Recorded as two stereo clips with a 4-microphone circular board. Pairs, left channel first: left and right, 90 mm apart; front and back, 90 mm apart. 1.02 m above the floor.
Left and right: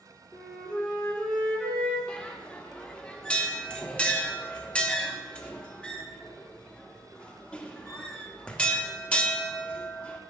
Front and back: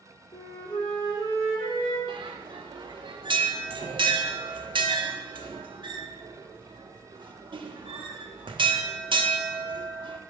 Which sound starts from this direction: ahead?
A flute, at 0.3 s.